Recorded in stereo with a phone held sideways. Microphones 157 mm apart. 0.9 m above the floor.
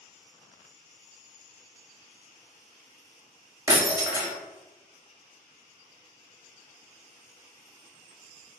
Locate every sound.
3.7 s breaking glass: 20° right (ahead or behind), 0.7 m